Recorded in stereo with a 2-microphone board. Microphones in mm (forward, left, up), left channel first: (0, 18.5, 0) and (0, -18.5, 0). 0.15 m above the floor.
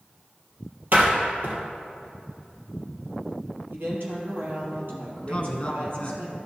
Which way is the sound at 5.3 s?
30° left (ahead or behind).